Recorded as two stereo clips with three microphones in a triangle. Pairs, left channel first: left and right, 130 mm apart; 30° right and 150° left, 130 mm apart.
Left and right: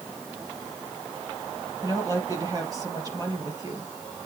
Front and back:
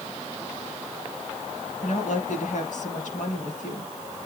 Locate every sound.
1.8 s a woman speaking: 30° right, 4 m